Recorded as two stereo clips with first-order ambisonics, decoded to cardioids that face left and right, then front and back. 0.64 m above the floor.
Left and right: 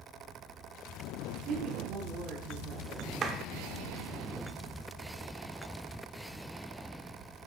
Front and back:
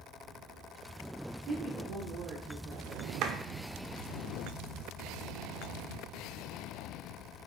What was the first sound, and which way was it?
A woman speaking, 140° right.